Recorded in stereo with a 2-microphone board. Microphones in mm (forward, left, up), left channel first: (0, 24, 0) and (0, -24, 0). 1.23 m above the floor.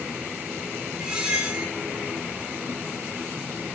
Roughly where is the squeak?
Centre.